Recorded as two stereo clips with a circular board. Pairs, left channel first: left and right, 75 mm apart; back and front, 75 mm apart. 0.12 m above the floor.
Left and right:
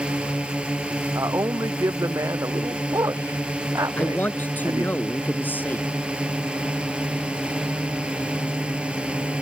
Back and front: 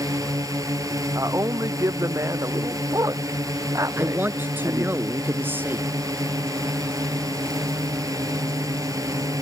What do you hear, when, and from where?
0.0 s a drone: 20° right
1.1 s a man speaking: 45° right
4.0 s a man speaking: 40° left